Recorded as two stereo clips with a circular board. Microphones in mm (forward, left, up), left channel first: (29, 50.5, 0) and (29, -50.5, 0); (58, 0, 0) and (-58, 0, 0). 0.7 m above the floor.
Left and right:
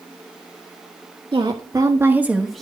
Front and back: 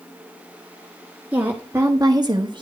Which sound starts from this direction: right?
A woman speaking, at 1.3 s.